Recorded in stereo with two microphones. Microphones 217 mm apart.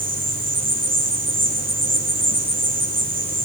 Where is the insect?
60° right (ahead or behind), 9.5 m.